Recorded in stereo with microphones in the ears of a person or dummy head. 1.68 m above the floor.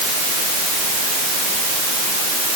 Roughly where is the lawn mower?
I don't hear a lawn mower.